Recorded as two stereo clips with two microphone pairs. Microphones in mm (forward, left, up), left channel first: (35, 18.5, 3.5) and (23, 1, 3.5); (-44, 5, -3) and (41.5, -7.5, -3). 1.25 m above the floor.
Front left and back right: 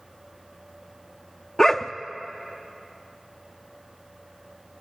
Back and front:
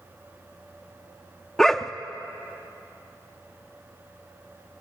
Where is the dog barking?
95° left, 0.7 m.